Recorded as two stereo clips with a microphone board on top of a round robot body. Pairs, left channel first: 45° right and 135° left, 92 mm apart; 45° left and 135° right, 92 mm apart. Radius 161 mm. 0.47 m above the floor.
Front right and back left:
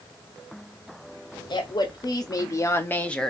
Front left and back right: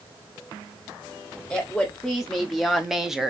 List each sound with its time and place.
1.5 s a woman speaking: 40° right, 1.5 m; by 3.3 s 100° right, 0.9 m